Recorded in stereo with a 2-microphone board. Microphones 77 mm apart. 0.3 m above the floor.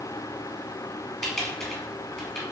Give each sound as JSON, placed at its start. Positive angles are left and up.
{"t": 1.2, "sound": "typing on a keyboard", "side_deg": 10, "distance_m": 1.6}